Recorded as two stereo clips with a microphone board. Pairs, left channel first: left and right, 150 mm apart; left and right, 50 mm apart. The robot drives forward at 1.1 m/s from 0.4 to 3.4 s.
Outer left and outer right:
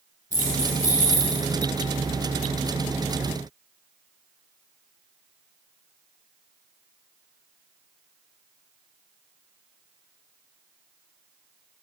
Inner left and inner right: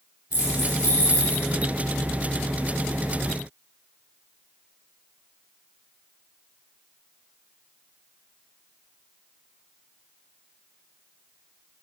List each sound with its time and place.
0.3 s keys jangling: 65° left (ahead or behind), 5 m; by 1.4 s 55° left (ahead or behind), 5.5 m